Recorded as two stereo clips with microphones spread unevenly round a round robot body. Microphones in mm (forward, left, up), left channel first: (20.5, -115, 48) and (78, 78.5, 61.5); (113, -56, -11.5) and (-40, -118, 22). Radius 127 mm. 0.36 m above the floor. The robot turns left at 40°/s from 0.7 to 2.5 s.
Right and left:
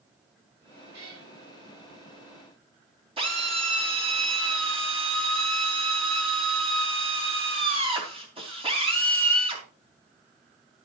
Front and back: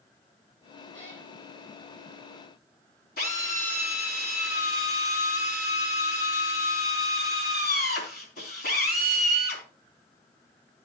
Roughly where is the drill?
Ahead.